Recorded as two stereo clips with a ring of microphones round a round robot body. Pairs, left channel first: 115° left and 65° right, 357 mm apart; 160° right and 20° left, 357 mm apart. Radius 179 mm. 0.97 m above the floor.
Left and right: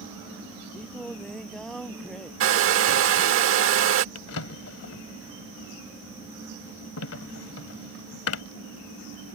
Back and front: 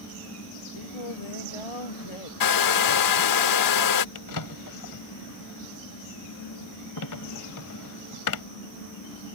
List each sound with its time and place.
0.7 s singing: 160° right
2.4 s a hair dryer: 120° right
4.2 s a drawer: 165° left